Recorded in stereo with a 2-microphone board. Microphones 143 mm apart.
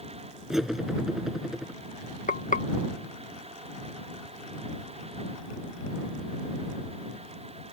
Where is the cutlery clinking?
5° right (ahead or behind).